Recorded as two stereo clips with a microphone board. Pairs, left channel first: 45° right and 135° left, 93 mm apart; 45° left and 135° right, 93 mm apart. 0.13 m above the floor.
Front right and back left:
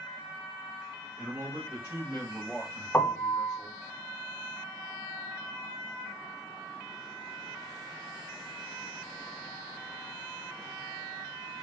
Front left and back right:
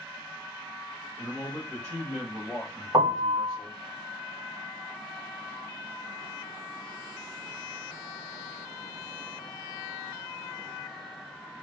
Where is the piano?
110° right, 0.7 m.